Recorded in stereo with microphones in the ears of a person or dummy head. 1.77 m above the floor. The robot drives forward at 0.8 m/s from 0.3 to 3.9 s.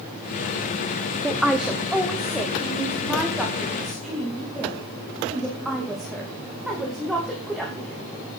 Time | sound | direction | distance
1.2 | a woman speaking | 5° right (ahead or behind) | 0.8 m